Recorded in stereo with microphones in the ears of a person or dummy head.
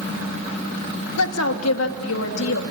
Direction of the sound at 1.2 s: 80° left.